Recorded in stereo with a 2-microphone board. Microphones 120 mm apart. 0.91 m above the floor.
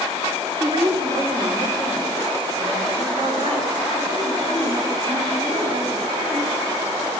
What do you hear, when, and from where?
0.6 s a woman speaking: 40° right (ahead or behind), 2 m; by 7.1 s 55° right (ahead or behind), 6.5 m